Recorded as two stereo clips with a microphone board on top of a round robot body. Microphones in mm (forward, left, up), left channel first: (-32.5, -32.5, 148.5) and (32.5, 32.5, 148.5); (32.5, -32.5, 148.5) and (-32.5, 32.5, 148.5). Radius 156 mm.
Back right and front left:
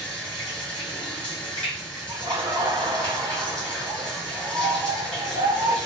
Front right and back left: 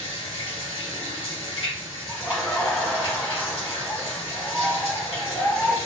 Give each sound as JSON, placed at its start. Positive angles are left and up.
{"t": 0.0, "sound": "running water", "azimuth_deg": -55, "distance_m": 2.0}
{"t": 2.1, "sound": "laughter", "azimuth_deg": 35, "distance_m": 1.3}